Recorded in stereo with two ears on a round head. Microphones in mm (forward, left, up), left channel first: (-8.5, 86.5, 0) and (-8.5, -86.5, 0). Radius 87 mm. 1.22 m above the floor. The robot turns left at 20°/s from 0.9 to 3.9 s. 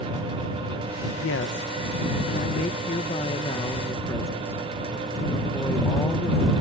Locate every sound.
1.2 s a woman speaking: 70° left; by 6.5 s 15° left